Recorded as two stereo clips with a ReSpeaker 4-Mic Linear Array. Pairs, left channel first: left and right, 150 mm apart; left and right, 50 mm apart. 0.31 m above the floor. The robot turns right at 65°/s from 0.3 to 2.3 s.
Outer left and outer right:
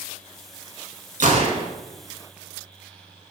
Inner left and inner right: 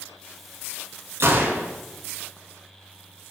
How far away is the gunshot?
About 0.8 m.